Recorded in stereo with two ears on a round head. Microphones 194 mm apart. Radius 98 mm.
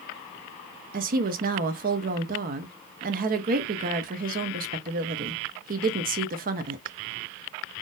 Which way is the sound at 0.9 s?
40° right (ahead or behind).